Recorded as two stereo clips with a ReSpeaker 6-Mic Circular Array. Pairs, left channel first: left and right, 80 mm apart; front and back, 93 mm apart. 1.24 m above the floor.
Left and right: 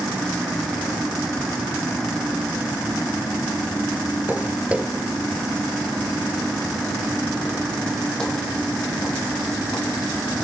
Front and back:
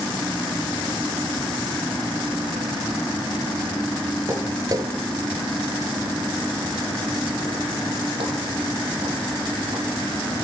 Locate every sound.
4.3 s footsteps: 140° right, 1.5 m; by 10.0 s 165° left, 5 m